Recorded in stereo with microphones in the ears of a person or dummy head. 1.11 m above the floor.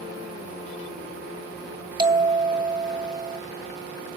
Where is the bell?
30° right (ahead or behind), 2 m.